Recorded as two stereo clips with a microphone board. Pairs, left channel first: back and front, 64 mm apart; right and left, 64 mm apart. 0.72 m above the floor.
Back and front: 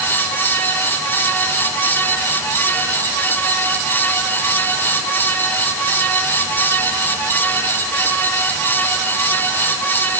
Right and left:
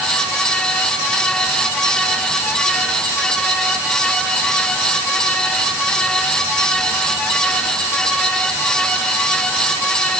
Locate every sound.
Only background noise.